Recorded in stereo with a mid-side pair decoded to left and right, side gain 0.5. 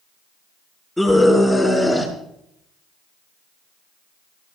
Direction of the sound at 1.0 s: 5° left.